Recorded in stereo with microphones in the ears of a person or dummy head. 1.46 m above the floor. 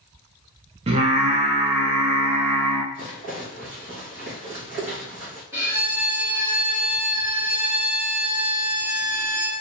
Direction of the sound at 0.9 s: 30° right (ahead or behind).